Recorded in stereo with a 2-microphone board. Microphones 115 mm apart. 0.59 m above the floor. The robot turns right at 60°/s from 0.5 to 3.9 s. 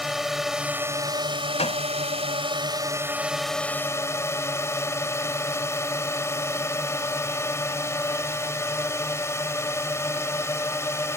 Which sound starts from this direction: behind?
A drone, at 0.0 s.